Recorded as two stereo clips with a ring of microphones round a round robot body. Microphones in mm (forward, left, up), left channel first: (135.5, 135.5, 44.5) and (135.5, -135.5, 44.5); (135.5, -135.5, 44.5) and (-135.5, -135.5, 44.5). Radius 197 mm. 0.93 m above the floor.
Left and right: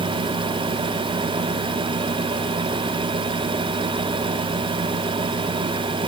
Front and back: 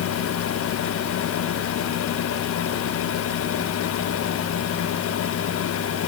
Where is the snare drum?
I don't hear a snare drum.